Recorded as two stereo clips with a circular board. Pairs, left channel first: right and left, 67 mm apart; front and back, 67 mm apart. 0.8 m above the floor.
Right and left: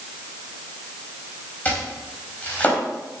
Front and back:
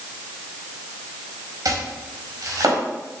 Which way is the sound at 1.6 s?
155° right.